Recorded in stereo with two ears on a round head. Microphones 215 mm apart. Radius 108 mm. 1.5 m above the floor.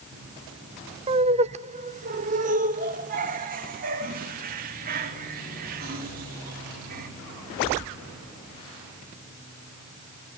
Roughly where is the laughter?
Right.